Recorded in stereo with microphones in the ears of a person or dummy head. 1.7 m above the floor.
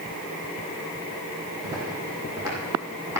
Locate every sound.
1.6 s footsteps: 20° right (ahead or behind), 6.5 m; by 3.2 s 15° right (ahead or behind), 6 m